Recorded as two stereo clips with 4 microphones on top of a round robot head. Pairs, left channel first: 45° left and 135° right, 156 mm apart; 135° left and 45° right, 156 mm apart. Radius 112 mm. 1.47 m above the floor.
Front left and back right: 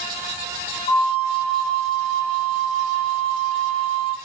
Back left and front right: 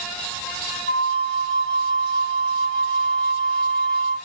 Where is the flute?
105° left, 3.5 m.